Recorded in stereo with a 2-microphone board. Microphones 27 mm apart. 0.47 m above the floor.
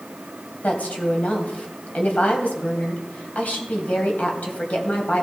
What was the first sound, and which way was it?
A woman speaking, 70° left (ahead or behind).